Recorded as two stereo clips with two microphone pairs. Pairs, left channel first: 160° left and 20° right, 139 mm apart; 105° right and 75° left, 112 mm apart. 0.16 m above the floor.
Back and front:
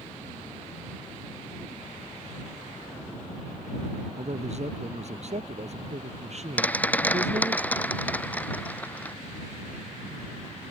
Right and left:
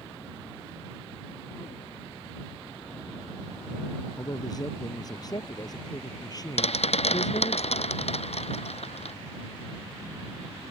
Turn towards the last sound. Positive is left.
turn(degrees=-125)